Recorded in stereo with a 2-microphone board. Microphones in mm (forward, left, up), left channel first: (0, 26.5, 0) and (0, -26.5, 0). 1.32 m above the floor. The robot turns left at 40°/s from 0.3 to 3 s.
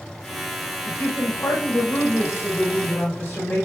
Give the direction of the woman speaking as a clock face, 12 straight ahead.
8 o'clock.